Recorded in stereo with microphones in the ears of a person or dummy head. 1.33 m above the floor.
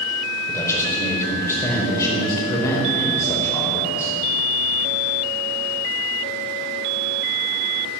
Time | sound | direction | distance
0.5 | a man speaking | 10° left (ahead or behind) | 4.5 m